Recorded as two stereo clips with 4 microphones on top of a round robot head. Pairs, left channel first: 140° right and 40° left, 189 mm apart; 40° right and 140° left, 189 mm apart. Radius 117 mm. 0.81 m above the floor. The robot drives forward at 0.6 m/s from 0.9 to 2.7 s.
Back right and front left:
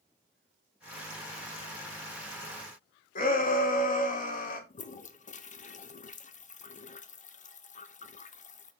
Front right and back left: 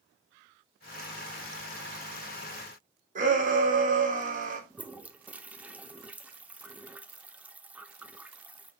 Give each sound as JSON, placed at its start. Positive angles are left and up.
{"t": 3.1, "sound": "a shout", "azimuth_deg": 180, "distance_m": 2.0}
{"t": 4.7, "sound": "a toilet flushing", "azimuth_deg": -145, "distance_m": 0.8}